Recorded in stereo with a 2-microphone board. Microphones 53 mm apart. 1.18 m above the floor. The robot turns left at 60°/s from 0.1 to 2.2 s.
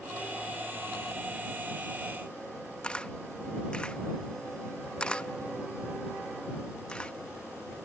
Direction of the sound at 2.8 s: 15° left (ahead or behind).